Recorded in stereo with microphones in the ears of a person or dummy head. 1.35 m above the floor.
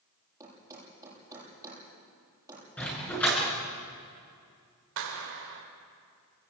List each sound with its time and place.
0.4 s a thud: 10° right (ahead or behind), 9 m
2.8 s a dog barking: 10° left (ahead or behind), 8 m
5.0 s a clap: 70° right (ahead or behind), 4.5 m